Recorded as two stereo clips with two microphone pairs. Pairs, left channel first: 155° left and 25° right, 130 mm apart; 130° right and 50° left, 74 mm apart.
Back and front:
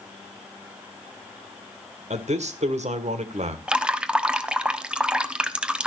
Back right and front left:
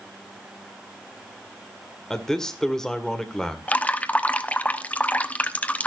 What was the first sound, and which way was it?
A man speaking, 45° right.